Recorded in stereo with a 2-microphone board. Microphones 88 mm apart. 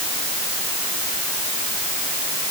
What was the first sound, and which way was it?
Only background noise.